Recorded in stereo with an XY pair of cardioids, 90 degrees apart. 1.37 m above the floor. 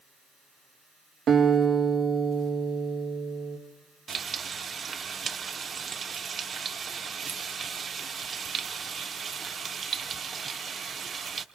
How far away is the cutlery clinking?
I don't hear cutlery clinking.